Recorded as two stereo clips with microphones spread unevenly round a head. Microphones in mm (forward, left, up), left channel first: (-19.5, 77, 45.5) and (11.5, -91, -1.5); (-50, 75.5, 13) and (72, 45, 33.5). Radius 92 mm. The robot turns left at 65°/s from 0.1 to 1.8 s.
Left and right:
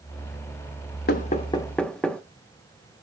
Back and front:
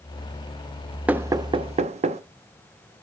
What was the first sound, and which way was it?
Knocking, 65° left.